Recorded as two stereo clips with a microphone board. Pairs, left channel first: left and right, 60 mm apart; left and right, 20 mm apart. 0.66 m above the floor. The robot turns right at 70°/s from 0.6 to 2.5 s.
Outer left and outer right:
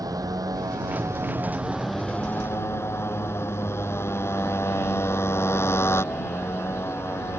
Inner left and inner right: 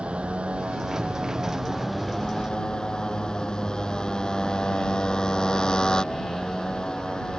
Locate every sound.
0.0 s a motorcycle: 90° right; by 7.4 s 45° left